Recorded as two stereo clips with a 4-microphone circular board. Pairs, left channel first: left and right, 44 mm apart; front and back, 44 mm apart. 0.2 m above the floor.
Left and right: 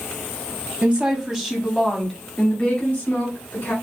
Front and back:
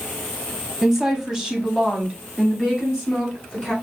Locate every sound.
0.8 s a woman speaking: 110° right, 1.2 m; by 3.7 s 115° left, 1.6 m